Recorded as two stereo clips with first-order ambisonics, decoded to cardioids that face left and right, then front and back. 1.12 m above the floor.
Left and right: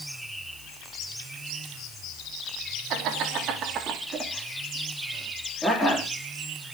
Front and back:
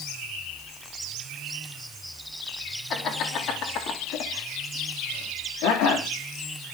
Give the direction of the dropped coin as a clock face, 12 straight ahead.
No dropped coin in this recording.